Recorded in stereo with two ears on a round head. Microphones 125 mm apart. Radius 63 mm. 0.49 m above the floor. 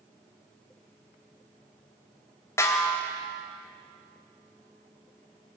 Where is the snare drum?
20° left (ahead or behind), 2.5 m.